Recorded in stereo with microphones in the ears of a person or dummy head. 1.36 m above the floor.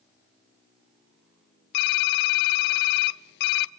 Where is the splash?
I don't hear a splash.